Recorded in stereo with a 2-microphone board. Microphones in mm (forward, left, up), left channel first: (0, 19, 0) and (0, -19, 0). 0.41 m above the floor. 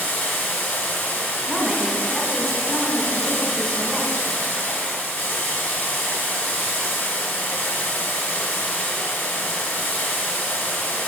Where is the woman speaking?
Centre (ahead or behind), 1.0 m.